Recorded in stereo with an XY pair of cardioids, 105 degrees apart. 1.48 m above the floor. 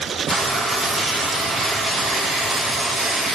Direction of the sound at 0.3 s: 35° right.